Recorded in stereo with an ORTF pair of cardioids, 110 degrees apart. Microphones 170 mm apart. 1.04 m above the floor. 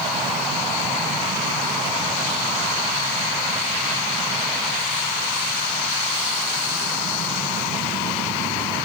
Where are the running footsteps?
No running footsteps in this recording.